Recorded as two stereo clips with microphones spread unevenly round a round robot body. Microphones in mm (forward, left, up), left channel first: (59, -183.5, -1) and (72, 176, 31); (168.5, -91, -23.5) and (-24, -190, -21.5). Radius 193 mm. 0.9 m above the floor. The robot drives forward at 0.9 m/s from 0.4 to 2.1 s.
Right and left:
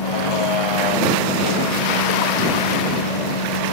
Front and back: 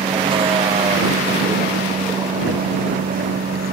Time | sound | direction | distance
0.0 | a vehicle | 85° right | ?